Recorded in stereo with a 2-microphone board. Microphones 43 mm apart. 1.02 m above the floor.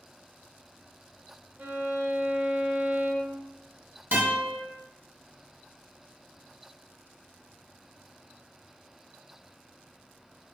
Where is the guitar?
45° right (ahead or behind), 1.7 m.